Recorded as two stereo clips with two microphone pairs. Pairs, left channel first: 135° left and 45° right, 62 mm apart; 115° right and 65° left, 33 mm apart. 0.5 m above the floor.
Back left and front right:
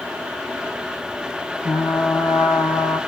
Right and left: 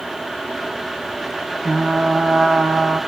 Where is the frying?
100° left, 3 m.